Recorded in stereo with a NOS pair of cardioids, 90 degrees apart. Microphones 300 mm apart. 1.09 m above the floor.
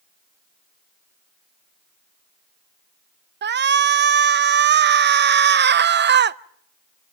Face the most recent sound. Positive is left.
turn(degrees=-35)